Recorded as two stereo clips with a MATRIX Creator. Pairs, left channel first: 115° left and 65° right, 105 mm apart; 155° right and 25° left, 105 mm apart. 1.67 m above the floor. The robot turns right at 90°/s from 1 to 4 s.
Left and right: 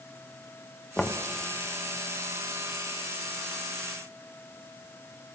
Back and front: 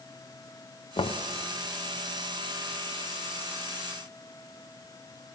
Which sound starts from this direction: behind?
Knocking, at 1.0 s.